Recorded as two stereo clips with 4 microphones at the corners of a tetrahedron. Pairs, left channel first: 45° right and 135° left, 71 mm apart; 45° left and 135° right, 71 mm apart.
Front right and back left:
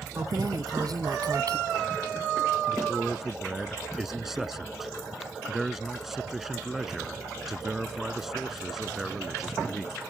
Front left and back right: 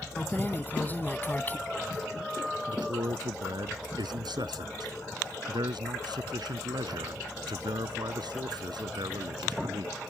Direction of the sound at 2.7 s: 140° right.